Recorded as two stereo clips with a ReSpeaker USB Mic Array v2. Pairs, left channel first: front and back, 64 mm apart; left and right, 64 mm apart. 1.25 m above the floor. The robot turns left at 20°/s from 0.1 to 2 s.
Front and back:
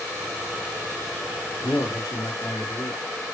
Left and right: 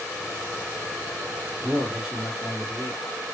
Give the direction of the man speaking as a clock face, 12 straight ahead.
12 o'clock.